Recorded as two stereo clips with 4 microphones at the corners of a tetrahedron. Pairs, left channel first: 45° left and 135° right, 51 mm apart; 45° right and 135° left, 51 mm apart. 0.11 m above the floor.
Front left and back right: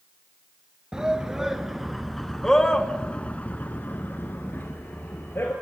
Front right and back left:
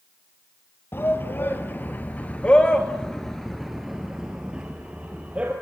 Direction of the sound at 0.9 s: 65° right.